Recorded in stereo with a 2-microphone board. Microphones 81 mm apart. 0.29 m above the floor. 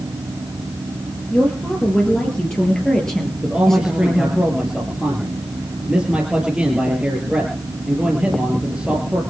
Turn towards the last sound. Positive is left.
turn(degrees=-10)  # may be behind; listen again after turning